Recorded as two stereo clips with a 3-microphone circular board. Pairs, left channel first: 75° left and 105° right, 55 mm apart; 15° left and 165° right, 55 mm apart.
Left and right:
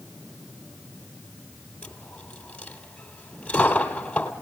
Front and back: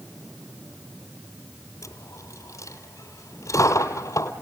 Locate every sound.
1.8 s a dropped coin: 5° left, 1.9 m